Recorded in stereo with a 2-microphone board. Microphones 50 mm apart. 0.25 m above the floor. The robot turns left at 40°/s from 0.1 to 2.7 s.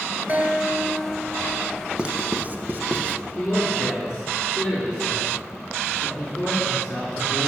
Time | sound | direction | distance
0.3 | a guitar | 95° right | 1.3 m
2.0 | writing | 20° right (ahead or behind) | 1.1 m
3.4 | a man speaking | 10° left (ahead or behind) | 4 m